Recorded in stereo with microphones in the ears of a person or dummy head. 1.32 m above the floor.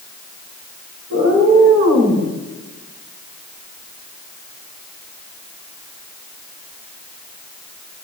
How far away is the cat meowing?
About 8 m.